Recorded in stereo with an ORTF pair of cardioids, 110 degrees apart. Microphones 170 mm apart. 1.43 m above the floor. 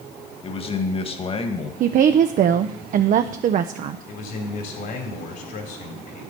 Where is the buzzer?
No buzzer in this recording.